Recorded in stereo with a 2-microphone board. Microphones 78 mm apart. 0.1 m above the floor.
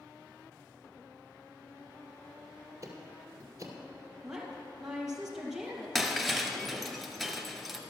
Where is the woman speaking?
5° right (ahead or behind), 2 m.